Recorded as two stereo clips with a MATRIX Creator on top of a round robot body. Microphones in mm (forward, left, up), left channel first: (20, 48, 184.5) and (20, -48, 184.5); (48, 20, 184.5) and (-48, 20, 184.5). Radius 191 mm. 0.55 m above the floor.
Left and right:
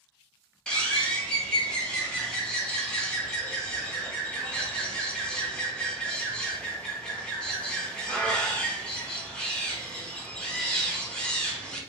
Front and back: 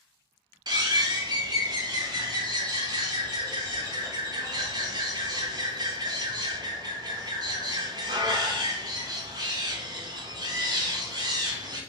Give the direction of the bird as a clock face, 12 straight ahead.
6 o'clock.